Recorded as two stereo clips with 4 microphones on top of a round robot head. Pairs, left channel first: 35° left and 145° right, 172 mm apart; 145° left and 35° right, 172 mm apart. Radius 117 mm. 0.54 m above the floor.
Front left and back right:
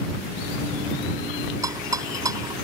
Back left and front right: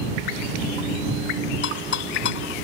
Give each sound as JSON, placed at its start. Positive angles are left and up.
{"t": 1.6, "sound": "a rattle", "azimuth_deg": 145}